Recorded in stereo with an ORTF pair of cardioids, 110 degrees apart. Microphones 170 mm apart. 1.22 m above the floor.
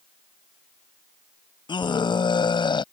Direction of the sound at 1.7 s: 25° left.